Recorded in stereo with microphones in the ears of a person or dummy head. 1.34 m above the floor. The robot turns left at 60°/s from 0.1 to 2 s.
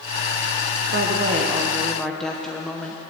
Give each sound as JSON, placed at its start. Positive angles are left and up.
{"t": 0.9, "sound": "a woman speaking", "azimuth_deg": -120, "distance_m": 0.8}